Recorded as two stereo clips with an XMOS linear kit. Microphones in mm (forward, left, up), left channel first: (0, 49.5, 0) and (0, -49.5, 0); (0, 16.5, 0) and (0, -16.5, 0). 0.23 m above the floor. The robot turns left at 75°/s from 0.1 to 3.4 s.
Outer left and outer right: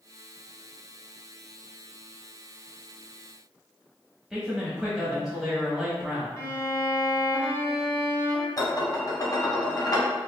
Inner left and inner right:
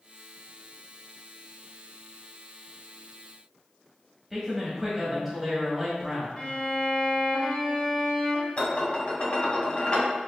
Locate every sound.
4.3 s a man speaking: 5° right (ahead or behind), 0.9 m
6.4 s a violin: 30° left (ahead or behind), 1.1 m
8.6 s dishes clattering: 45° left (ahead or behind), 0.9 m